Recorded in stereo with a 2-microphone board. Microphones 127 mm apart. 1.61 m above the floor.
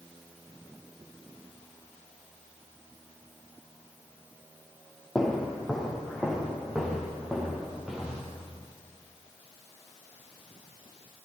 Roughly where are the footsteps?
Centre.